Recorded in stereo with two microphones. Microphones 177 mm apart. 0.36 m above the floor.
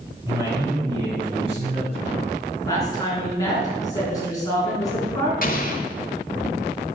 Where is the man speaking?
15° right (ahead or behind), 3 m; by 2.5 s 50° right (ahead or behind), 3 m.